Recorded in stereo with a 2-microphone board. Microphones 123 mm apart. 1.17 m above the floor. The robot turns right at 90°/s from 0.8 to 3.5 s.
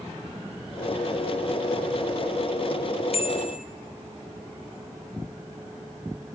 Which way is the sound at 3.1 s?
50° left.